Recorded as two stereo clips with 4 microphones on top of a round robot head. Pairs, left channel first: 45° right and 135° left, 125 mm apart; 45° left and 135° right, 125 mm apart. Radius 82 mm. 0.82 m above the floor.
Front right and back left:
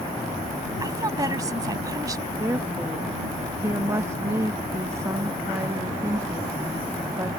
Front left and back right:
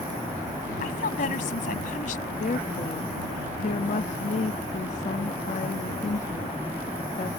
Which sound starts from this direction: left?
A woman speaking, at 0.8 s.